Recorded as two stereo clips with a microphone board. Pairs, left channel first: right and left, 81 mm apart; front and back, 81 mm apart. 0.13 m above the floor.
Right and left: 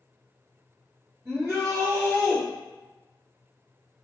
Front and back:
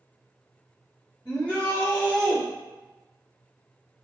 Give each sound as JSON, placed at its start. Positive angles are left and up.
{"t": 1.2, "sound": "a shout", "azimuth_deg": 60, "distance_m": 1.9}